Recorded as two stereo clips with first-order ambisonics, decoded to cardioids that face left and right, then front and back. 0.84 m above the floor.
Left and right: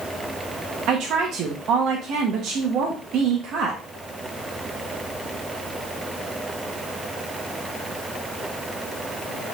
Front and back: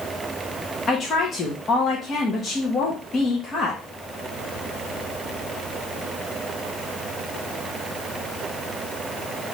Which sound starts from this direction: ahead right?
A woman speaking, at 0.9 s.